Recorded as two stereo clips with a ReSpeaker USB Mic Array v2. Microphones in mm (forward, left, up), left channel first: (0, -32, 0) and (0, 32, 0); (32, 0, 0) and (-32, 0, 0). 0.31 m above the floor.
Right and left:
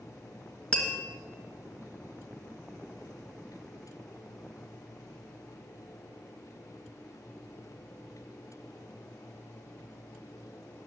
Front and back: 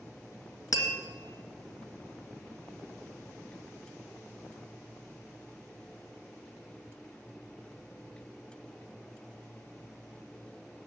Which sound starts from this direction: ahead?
Tapping, at 0.7 s.